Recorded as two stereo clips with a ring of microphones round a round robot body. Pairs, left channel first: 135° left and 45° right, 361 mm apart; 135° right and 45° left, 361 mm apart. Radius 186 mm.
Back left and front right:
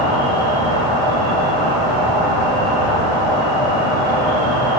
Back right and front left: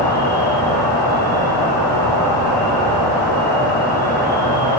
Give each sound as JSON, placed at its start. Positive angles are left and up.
{"t": 0.0, "sound": "an insect", "azimuth_deg": -55, "distance_m": 3.0}